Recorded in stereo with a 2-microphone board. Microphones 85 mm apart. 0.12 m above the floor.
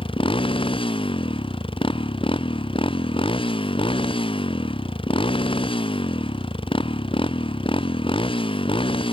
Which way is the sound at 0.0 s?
80° left.